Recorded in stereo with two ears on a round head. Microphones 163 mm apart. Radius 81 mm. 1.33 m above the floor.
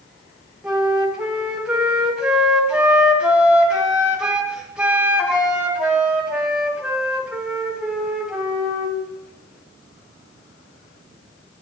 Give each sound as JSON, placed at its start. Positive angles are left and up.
{"t": 0.6, "sound": "a flute", "side_deg": -5, "distance_m": 1.8}